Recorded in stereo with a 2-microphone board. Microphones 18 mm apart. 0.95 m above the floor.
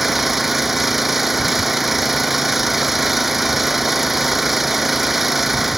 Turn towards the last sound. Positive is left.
turn(degrees=-5)  # may be behind; listen again after turning